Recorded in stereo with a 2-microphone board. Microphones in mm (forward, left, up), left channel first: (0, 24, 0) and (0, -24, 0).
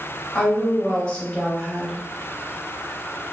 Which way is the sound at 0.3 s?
30° left (ahead or behind).